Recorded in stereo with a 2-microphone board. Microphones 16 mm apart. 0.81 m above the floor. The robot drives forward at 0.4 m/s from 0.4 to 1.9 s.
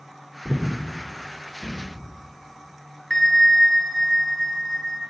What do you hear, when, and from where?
0.5 s breathing: 45° right (ahead or behind), 2 m; by 2.1 s 35° right (ahead or behind), 2.5 m
3.1 s a bell: 25° left (ahead or behind), 0.9 m